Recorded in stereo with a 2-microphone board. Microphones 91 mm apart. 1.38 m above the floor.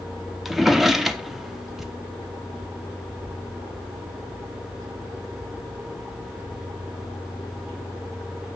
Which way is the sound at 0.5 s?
Centre (ahead or behind).